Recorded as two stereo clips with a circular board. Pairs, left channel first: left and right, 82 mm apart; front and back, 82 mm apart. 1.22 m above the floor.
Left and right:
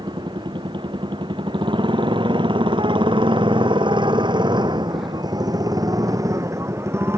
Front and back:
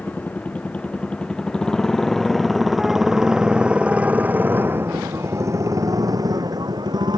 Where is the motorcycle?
70° right; by 7.2 s 150° right.